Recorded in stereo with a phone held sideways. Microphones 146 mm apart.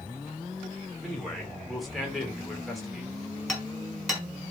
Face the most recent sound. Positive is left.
turn(degrees=0)  # may be behind; listen again after turning